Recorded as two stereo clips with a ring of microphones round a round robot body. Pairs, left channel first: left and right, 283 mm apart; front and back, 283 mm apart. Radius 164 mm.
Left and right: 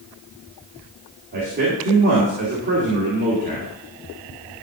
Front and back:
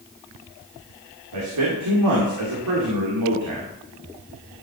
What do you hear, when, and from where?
1.3 s a man speaking: 150° right, 2.5 m